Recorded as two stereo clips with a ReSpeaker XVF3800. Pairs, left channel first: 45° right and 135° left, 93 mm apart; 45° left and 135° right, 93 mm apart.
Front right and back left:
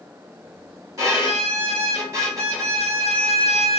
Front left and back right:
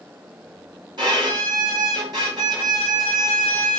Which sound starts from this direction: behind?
A violin, at 1.0 s.